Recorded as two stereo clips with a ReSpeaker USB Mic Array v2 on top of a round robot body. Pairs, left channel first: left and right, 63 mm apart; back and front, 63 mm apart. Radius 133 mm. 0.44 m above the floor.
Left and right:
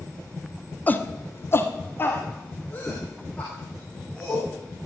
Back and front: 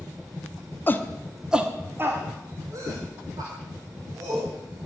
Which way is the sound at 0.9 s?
140° left.